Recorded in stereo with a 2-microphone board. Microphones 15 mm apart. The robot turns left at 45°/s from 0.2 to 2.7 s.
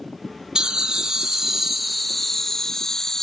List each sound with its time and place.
0.6 s laughter: 110° right, 0.7 m; by 3.2 s 150° left, 0.7 m